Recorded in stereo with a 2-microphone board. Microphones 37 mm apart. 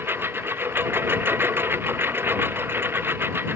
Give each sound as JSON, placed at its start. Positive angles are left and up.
{"t": 0.0, "sound": "a lawn mower", "side_deg": -80}